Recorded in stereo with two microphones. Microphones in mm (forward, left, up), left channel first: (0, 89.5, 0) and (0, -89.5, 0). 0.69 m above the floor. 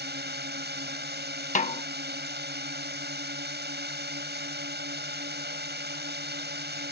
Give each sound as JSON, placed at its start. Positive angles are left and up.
{"t": 0.0, "sound": "a drone", "side_deg": -70}
{"t": 1.6, "sound": "a snare drum", "side_deg": 45}